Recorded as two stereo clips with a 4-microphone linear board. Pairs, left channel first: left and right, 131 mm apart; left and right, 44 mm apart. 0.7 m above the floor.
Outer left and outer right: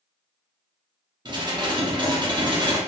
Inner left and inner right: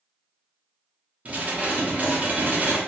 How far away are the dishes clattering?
About 0.6 m.